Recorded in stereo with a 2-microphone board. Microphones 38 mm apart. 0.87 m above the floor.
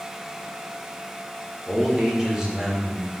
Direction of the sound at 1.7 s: 15° right (ahead or behind).